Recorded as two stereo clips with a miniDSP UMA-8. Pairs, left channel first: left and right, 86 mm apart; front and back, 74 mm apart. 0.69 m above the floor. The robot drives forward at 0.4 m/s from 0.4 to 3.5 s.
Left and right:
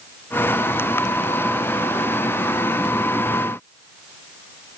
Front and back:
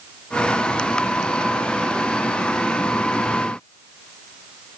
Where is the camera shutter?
I don't hear a camera shutter.